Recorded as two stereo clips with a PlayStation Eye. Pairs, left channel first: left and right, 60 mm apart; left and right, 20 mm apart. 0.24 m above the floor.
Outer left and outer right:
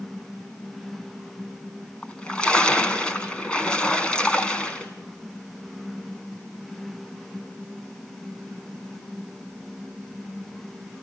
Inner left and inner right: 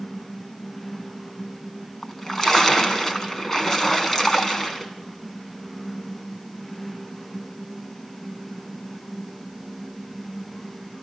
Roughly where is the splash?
Centre.